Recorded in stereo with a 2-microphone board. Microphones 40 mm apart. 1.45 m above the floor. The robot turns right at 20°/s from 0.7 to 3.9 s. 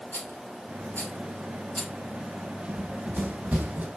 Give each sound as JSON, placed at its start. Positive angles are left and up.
{"t": 0.1, "sound": "a rattle", "side_deg": 55, "distance_m": 3.0}
{"t": 2.7, "sound": "running footsteps", "side_deg": -40, "distance_m": 2.5}